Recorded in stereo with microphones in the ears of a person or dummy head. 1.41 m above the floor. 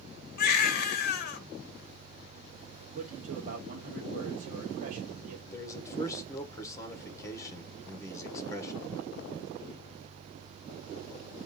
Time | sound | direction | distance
0.4 | a baby crying | 45° left (ahead or behind) | 1.0 m
3.0 | a man speaking | 45° right (ahead or behind) | 0.9 m
5.5 | a man speaking | 20° left (ahead or behind) | 1.6 m